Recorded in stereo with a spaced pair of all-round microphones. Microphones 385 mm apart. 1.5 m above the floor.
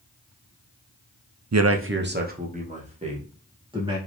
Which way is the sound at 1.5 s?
45° right (ahead or behind).